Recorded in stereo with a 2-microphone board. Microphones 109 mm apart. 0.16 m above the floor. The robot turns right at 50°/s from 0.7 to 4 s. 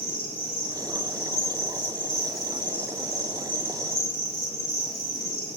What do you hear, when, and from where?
0.0 s an insect: 100° left, 2.0 m; by 5.6 s 95° right, 2.0 m